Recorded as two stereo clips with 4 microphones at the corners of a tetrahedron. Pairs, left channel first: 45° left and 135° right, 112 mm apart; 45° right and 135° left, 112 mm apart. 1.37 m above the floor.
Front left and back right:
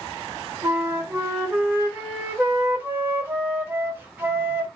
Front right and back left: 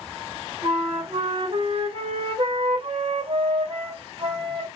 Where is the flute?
155° left, 1.0 m.